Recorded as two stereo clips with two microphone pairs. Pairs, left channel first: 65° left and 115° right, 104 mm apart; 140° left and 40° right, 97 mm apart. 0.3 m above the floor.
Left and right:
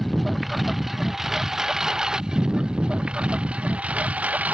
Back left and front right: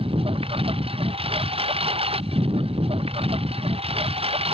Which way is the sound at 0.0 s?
25° right.